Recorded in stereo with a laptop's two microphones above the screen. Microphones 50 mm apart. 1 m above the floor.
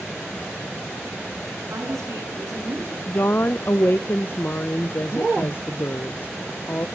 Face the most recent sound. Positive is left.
turn(degrees=45)  # may be behind; listen again after turning